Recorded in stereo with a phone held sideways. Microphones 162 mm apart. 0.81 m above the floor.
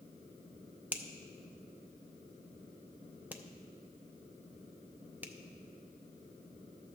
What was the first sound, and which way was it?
A finger snap, 10° right (ahead or behind).